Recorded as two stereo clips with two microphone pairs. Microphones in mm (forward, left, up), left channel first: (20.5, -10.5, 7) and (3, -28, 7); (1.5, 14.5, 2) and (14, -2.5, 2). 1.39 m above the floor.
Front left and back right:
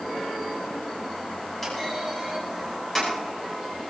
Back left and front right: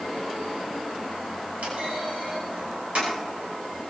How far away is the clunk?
About 8.5 m.